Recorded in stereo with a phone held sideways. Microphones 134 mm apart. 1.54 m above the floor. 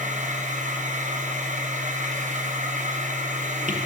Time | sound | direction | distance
0.0 | a machine running | 70° right (ahead or behind) | 0.9 m